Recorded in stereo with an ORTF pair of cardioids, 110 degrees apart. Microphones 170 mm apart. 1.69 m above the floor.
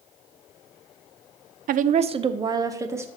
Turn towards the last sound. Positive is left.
turn(degrees=-15)